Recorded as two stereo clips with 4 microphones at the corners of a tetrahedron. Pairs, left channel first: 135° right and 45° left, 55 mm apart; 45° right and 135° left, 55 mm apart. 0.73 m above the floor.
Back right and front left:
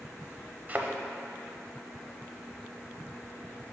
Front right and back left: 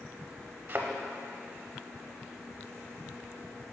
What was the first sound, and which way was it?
A thud, 95° left.